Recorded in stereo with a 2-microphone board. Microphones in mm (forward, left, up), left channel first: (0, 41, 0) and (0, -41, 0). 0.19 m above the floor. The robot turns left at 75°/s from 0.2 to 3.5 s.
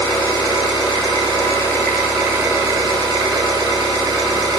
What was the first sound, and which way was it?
An engine running, 130° left.